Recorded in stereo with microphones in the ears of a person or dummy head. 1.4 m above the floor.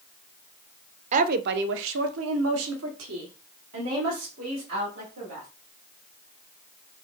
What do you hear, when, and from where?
1.1 s a woman speaking: 40° right (ahead or behind), 0.5 m; by 5.5 s 70° right (ahead or behind), 2.5 m